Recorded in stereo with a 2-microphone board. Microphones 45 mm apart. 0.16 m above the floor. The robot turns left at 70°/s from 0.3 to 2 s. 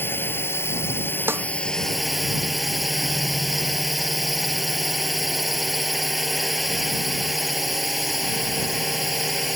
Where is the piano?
I don't hear a piano.